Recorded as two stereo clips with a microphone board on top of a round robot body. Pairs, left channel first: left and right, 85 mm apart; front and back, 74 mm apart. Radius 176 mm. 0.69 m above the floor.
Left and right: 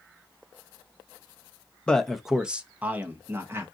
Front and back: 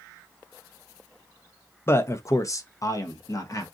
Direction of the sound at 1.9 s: 20° left.